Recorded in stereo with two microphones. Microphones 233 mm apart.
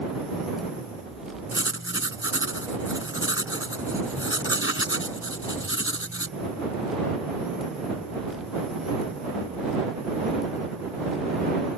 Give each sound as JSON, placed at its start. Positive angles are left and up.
{"t": 1.5, "sound": "writing", "side_deg": 60}